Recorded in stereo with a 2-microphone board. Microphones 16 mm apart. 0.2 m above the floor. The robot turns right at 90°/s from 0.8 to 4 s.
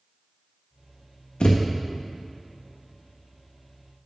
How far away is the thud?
About 1.1 m.